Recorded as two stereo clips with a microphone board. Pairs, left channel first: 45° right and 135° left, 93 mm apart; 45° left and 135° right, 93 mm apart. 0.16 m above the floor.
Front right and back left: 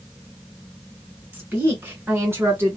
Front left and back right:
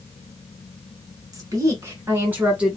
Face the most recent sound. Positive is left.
turn(degrees=155)